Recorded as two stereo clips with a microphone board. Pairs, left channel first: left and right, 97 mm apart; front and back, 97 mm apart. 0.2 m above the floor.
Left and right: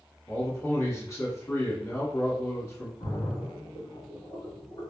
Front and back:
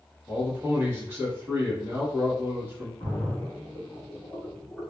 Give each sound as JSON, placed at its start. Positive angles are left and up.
{"t": 0.3, "sound": "a man speaking", "azimuth_deg": 130, "distance_m": 1.5}
{"t": 3.0, "sound": "a splash", "azimuth_deg": 90, "distance_m": 2.0}